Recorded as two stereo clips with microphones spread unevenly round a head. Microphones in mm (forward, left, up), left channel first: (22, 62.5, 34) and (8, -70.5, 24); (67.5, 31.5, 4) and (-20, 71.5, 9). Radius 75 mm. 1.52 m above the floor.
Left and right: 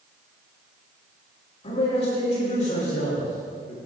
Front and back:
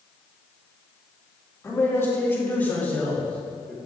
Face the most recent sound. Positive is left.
turn(degrees=60)